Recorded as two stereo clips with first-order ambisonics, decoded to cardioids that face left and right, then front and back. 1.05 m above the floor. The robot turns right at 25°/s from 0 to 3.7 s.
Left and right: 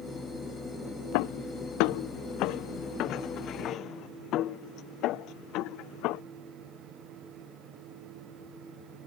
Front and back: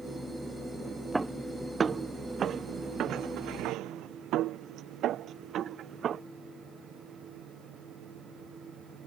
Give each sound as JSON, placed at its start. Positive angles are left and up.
{"t": 1.1, "sound": "footsteps", "azimuth_deg": 95}